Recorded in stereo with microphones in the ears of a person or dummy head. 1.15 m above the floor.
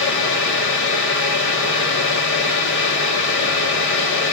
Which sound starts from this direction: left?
A fan, at 0.0 s.